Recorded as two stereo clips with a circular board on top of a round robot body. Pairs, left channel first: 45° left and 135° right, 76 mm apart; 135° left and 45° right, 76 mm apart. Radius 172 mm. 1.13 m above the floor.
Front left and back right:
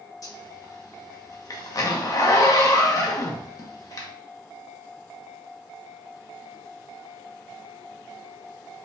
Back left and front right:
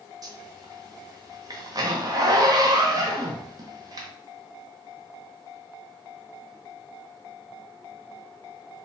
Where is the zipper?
Straight ahead, 0.9 m.